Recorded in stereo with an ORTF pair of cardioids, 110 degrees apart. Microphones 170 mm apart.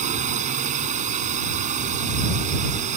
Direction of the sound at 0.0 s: 45° right.